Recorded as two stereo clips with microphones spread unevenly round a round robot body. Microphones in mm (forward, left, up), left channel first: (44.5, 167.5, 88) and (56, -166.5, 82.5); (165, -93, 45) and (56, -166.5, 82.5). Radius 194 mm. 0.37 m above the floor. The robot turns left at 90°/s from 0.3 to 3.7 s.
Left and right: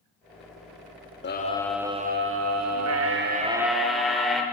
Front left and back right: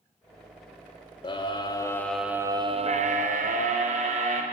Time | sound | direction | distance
1.2 | a scream | 45° left | 1.2 m